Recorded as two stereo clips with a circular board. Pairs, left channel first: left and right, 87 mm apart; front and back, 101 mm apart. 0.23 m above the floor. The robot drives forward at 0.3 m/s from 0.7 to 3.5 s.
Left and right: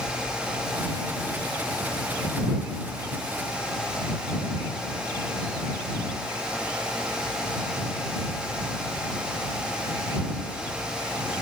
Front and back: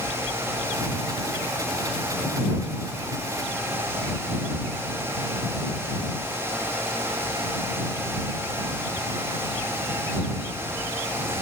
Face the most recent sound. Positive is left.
No sound to turn to.